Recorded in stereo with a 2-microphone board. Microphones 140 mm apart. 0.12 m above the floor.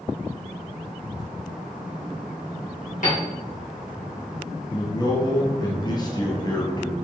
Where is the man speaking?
30° left (ahead or behind), 2.0 m.